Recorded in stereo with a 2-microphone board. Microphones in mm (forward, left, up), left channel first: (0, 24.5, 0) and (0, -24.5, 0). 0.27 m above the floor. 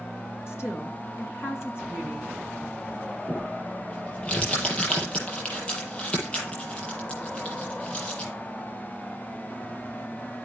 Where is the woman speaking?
60° left (ahead or behind), 2.5 m.